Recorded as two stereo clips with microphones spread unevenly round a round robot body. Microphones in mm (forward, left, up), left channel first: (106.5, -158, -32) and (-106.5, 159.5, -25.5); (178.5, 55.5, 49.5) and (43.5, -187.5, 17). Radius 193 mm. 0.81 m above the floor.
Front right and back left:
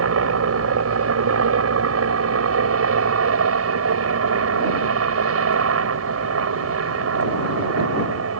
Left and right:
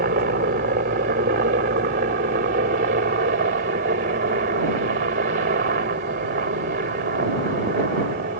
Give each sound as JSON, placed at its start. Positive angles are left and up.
{"t": 0.0, "sound": "a helicopter", "azimuth_deg": 175}